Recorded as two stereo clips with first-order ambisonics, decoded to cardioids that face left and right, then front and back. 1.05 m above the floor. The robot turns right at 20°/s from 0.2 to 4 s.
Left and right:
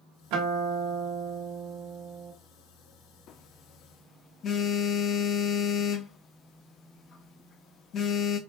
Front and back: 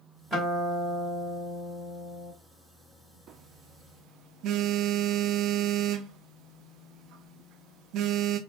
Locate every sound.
0.3 s a guitar: 100° right, 2 m; by 2.3 s 60° right, 2 m
3.3 s a phone buzzing: 130° left, 0.5 m; by 8.4 s 145° left, 0.5 m